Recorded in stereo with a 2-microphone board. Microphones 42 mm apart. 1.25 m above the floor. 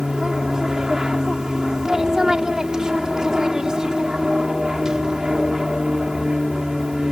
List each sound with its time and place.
0.0 s an aircraft: 20° right (ahead or behind)